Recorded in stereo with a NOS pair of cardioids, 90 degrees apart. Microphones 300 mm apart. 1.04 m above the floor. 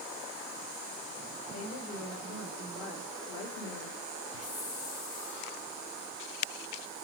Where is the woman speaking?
55° left, 3 m; by 4.0 s 70° left, 2 m.